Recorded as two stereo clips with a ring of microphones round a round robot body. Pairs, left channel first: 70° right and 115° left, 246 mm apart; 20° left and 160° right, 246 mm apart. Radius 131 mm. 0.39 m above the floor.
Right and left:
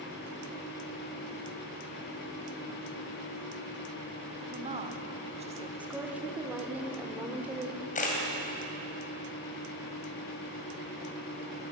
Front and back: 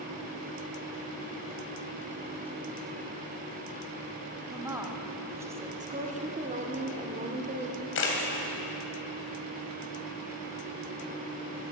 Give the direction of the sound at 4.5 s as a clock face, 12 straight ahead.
7 o'clock.